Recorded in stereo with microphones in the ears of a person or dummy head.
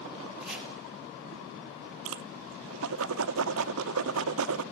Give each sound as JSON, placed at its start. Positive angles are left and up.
{"t": 0.4, "sound": "chopping", "side_deg": 0, "distance_m": 5.0}
{"t": 2.0, "sound": "a whoosh", "side_deg": -75, "distance_m": 0.7}